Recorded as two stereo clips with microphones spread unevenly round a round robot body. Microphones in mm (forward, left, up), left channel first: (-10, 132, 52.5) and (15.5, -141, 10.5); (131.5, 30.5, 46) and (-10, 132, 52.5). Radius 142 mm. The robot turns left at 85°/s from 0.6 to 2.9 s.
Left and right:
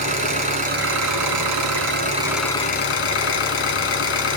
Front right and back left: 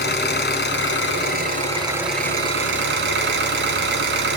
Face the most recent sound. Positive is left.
turn(degrees=145)